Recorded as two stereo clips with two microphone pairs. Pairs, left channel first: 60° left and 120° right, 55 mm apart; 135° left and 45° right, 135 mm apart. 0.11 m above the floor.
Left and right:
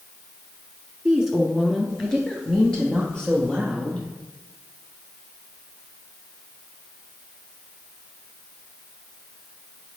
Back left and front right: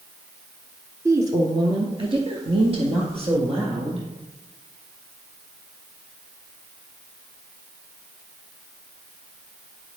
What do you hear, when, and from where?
1.1 s a woman speaking: 55° right, 1.1 m; by 4.1 s 10° right, 3 m